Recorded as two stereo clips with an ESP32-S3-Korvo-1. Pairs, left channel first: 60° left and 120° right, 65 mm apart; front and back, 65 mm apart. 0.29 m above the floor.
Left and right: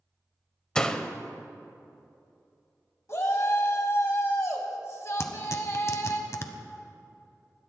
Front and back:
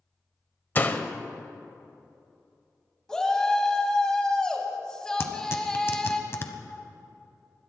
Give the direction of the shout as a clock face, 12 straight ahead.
10 o'clock.